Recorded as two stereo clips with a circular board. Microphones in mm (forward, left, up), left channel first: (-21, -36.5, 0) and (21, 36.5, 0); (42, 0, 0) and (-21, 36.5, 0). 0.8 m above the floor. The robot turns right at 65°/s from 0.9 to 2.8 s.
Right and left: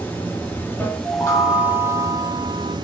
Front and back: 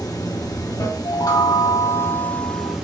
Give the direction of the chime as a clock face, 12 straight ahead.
3 o'clock.